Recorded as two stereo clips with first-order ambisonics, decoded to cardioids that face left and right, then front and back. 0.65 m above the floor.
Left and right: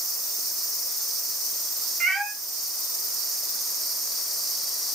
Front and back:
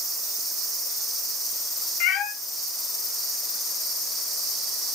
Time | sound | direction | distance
2.0 | a cat meowing | 15° right | 0.6 m